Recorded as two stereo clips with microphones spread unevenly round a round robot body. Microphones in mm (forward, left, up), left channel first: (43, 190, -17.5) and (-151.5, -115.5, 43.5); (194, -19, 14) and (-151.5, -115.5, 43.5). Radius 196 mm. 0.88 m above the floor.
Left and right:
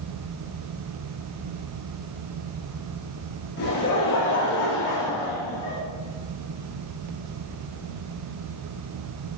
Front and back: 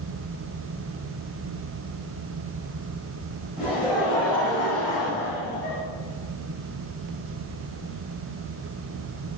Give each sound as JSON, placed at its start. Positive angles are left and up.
{"t": 3.6, "sound": "laughter", "azimuth_deg": 110, "distance_m": 4.0}